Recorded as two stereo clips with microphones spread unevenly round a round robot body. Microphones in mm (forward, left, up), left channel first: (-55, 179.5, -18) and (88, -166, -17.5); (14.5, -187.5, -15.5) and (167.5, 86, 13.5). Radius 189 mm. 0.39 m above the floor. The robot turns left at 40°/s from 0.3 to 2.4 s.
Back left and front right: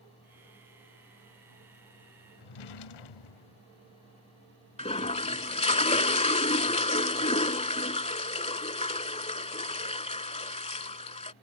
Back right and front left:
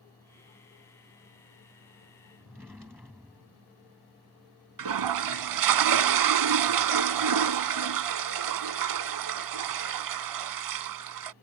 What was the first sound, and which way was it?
A drawer, 145° left.